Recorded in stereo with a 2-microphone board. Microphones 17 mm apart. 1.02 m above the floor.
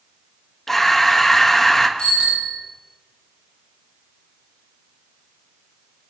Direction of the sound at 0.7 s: 15° left (ahead or behind).